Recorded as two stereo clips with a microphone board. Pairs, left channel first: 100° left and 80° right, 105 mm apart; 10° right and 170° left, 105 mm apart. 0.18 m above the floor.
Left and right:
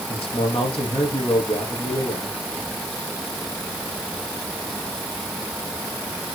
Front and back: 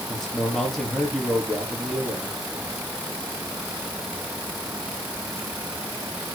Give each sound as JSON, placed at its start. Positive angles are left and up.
{"t": 0.1, "sound": "a man speaking", "azimuth_deg": 75, "distance_m": 5.5}